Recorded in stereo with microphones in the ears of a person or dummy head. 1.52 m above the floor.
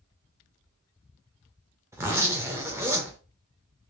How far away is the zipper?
About 0.5 m.